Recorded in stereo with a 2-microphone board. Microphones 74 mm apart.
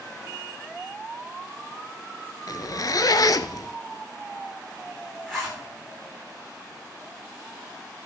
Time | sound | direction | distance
2.5 | a zipper | 55° left (ahead or behind) | 0.7 m
5.3 | a zipper | 5° left (ahead or behind) | 6.5 m